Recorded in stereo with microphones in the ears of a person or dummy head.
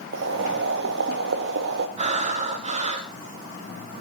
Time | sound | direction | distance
0.1 | boiling | 65° right (ahead or behind) | 1.8 m
2.0 | breathing | 35° right (ahead or behind) | 1.8 m